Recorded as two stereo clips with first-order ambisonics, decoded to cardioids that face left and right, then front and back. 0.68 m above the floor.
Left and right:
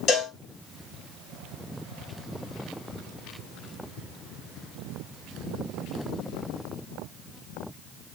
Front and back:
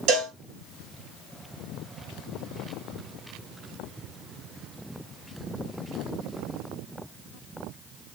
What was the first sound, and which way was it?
A cowbell, 145° left.